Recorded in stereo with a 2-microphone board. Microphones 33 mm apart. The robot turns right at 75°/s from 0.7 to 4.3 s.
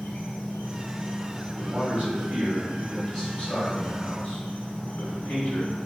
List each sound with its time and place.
0.0 s an insect: 130° left, 1.1 m; by 5.9 s 40° left, 1.1 m
1.6 s a man speaking: 120° right, 1.7 m; by 5.8 s 85° left, 1.7 m